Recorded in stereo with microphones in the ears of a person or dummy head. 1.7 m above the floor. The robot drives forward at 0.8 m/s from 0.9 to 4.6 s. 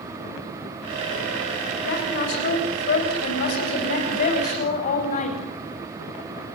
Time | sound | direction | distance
1.9 | a woman speaking | 60° left (ahead or behind) | 6.5 m